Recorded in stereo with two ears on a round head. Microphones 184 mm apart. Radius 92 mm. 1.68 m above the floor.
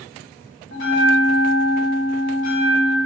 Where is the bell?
60° left (ahead or behind), 0.9 m.